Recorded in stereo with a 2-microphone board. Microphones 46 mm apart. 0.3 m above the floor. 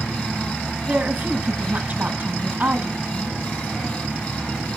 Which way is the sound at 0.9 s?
45° right (ahead or behind).